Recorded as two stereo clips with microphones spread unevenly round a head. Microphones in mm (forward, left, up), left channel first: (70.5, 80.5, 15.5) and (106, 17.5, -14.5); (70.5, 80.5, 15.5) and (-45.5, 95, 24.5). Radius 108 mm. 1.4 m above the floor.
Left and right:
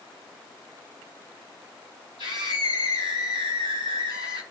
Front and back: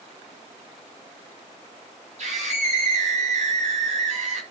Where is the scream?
155° left, 5.5 m.